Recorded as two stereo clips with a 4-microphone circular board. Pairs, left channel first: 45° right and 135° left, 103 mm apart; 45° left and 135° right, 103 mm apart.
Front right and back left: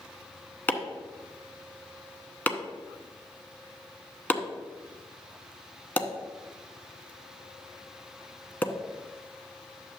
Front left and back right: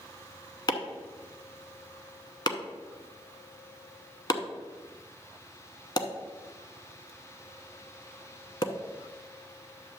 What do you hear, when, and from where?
0.7 s chopping: 20° left, 0.8 m